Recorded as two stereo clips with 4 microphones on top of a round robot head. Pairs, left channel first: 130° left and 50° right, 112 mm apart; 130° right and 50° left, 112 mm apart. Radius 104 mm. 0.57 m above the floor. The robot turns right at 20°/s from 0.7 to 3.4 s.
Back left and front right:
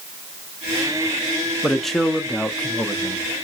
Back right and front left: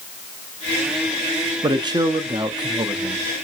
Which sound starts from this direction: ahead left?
A man speaking, at 1.6 s.